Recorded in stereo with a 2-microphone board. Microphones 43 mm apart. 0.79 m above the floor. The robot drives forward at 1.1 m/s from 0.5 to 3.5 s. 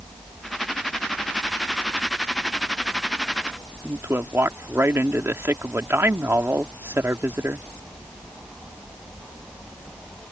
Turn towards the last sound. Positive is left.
turn(degrees=-65)  # may be behind; listen again after turning